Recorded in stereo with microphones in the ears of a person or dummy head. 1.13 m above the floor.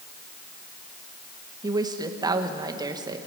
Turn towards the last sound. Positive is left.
turn(degrees=-15)  # may be behind; listen again after turning